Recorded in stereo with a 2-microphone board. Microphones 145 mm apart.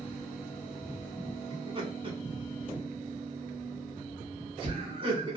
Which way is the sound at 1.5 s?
40° right (ahead or behind).